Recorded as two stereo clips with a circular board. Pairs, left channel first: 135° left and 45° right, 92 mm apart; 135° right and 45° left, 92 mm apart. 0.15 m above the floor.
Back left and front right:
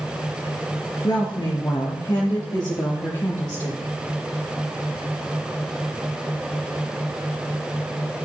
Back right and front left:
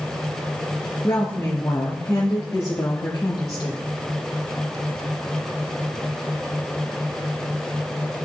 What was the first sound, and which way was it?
A woman speaking, 165° left.